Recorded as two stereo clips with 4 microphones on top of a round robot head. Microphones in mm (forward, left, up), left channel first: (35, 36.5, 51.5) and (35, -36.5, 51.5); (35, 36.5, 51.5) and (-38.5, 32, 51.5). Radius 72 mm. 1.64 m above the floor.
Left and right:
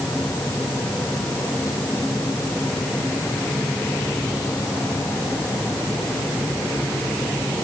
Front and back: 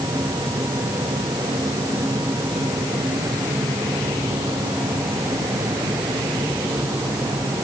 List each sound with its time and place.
Only background noise.